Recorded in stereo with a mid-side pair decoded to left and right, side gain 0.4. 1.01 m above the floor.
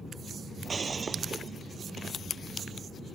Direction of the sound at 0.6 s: 40° right.